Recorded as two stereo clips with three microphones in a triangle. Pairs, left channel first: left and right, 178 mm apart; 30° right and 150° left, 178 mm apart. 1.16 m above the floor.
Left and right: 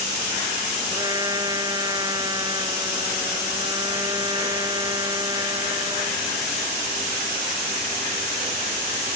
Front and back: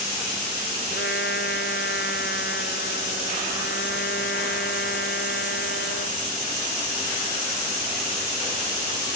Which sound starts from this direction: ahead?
A trumpet, at 0.9 s.